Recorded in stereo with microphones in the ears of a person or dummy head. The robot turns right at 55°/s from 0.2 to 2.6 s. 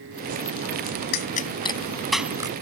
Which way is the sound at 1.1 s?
55° left (ahead or behind).